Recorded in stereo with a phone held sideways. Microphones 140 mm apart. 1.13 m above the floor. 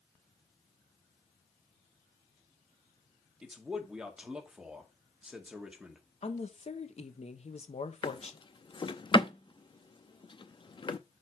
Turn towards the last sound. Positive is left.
turn(degrees=35)  # may be behind; listen again after turning